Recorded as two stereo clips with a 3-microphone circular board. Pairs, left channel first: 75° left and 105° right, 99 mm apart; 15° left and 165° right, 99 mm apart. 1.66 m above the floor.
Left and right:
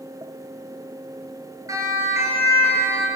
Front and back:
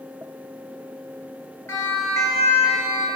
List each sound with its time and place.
1.7 s a siren: 50° right, 8.5 m; by 3.1 s 40° right, 8 m